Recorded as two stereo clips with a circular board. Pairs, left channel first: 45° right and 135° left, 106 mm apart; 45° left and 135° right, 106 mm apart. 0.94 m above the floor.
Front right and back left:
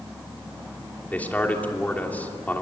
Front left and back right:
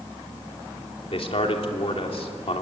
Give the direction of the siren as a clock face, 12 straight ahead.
No siren in this recording.